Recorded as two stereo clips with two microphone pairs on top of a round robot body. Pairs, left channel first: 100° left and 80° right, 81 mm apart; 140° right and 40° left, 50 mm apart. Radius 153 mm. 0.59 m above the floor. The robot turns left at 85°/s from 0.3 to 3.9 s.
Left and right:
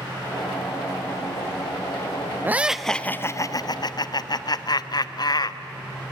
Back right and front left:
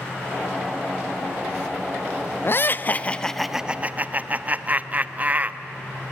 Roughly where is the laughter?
Behind right.